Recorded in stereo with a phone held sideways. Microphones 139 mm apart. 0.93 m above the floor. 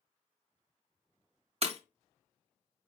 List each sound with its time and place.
1.6 s breaking glass: 45° right (ahead or behind), 0.9 m